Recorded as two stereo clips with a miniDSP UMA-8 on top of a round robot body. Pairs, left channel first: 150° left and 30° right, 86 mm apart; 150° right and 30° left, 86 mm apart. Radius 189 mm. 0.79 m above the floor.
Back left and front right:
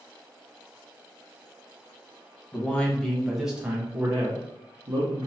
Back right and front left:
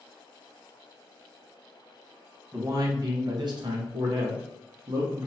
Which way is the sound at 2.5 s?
80° left.